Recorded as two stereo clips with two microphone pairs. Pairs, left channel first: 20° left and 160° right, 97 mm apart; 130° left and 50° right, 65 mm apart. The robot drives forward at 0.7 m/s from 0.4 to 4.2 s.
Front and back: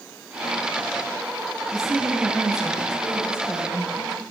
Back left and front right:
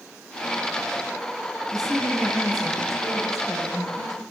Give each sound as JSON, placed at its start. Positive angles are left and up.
{"t": 1.7, "sound": "a woman speaking", "azimuth_deg": 150, "distance_m": 4.0}